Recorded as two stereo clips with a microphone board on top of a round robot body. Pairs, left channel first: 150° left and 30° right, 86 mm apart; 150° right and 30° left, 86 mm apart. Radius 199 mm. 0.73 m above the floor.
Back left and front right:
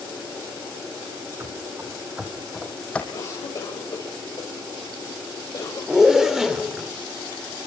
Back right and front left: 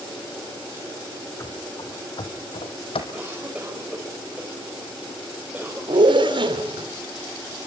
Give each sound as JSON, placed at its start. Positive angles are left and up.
{"t": 1.4, "sound": "running footsteps", "azimuth_deg": -95, "distance_m": 2.5}
{"t": 3.1, "sound": "a cough", "azimuth_deg": 105, "distance_m": 4.0}
{"t": 5.9, "sound": "a zipper", "azimuth_deg": 55, "distance_m": 3.0}